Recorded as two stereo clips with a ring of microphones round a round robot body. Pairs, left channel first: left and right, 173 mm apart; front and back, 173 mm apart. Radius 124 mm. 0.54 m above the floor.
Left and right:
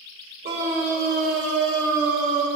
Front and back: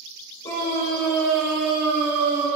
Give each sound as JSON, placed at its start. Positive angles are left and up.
{"t": 0.4, "sound": "a scream", "azimuth_deg": -80, "distance_m": 2.5}